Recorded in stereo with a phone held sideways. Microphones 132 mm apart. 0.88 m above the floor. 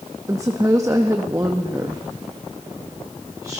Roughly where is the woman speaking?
Right.